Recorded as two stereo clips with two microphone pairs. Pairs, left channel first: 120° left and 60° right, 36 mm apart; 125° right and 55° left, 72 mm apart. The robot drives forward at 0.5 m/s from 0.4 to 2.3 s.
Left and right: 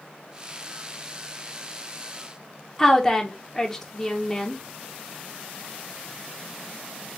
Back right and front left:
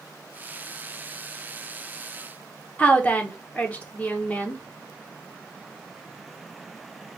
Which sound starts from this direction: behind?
A woman speaking, at 2.8 s.